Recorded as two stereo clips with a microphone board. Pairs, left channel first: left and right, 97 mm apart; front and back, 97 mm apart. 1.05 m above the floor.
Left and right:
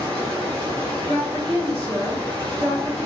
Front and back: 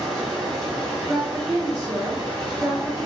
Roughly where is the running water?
Behind right.